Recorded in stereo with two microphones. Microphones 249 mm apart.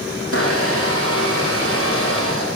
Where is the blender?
60° left (ahead or behind), 9.5 m.